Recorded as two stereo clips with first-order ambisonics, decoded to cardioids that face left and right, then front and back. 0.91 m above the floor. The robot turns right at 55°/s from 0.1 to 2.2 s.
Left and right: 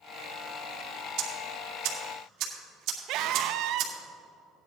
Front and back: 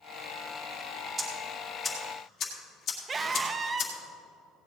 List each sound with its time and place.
1.2 s ticking: 115° right, 2 m; by 3.9 s 55° right, 2 m
3.1 s a scream: 115° right, 0.6 m